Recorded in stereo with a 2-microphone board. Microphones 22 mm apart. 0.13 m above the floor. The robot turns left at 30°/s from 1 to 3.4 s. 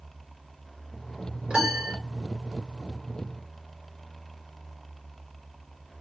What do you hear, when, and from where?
1.5 s a piano: 45° right (ahead or behind), 2 m; by 2.0 s 40° right (ahead or behind), 2 m